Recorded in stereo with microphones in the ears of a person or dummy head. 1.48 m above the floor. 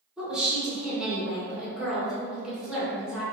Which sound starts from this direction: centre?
A woman speaking, at 0.2 s.